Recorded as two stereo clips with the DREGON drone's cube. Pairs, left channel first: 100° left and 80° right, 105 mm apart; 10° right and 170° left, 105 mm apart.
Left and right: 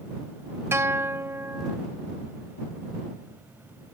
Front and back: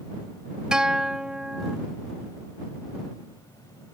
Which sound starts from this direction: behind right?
A guitar, at 0.7 s.